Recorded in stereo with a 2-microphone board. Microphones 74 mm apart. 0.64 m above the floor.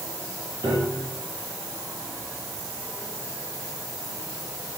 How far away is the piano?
About 5.5 m.